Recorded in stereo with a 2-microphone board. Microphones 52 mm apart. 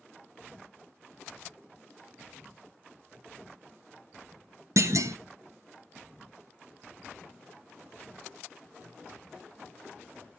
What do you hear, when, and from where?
4.8 s a clunk: 70° right (ahead or behind), 0.6 m